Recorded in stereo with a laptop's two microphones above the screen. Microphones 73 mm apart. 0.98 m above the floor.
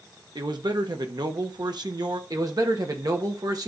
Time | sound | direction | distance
0.3 | a man speaking | 70° right (ahead or behind) | 1.3 m
2.3 | a man speaking | 55° right (ahead or behind) | 1.5 m